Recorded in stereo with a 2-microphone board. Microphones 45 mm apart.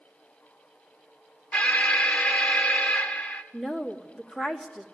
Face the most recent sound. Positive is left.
turn(degrees=10)  # may be behind; listen again after turning